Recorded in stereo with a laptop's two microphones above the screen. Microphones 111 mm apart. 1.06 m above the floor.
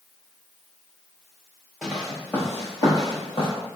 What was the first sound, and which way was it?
Footsteps, centre (ahead or behind).